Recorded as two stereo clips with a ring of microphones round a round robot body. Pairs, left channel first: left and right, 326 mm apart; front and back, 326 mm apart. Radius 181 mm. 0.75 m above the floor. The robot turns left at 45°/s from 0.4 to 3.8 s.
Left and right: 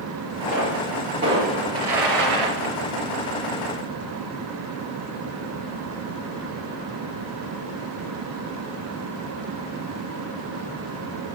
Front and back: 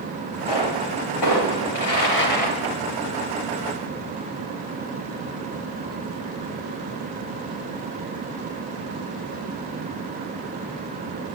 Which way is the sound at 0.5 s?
20° left.